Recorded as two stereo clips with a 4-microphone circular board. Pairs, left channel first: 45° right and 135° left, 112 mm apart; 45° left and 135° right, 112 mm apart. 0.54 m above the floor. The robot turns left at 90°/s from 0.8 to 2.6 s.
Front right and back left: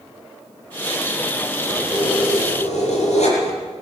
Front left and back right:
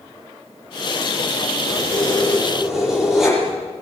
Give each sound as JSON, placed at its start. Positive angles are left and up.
{"t": 1.7, "sound": "keys jangling", "azimuth_deg": 35, "distance_m": 10.0}